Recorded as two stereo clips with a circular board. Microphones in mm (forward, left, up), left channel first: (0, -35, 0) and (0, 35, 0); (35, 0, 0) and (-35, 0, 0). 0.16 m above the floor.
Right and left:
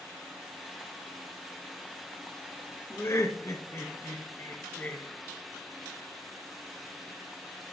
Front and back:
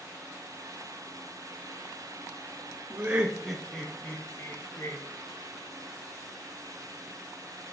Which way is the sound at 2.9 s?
120° right.